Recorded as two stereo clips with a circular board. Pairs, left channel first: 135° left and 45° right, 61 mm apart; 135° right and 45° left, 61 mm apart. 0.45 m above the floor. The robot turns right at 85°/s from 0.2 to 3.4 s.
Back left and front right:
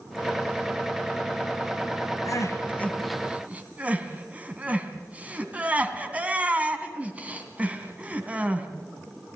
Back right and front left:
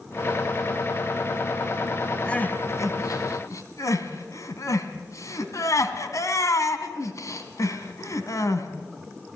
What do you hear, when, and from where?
2.2 s crying: 150° left, 2.5 m; by 8.7 s 110° right, 2.5 m